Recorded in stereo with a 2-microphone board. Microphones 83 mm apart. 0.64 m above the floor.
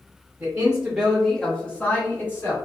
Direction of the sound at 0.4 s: 25° right (ahead or behind).